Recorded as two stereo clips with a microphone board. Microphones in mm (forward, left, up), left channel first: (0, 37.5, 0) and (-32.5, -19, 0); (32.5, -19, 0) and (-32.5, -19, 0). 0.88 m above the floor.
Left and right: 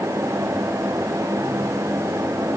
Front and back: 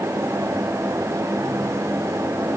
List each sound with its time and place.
Only background noise.